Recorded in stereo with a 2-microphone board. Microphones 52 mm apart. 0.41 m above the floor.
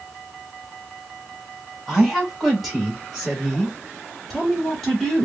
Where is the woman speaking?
Centre (ahead or behind), 1.8 m; by 5.2 s 5° left (ahead or behind), 1.4 m.